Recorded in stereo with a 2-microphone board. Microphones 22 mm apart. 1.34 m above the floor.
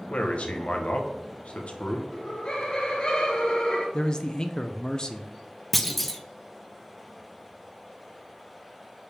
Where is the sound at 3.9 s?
35° left (ahead or behind), 0.6 m.